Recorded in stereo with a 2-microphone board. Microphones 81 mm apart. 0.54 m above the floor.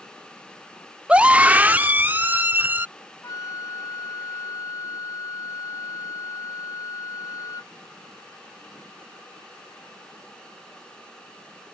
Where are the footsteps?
No footsteps in this recording.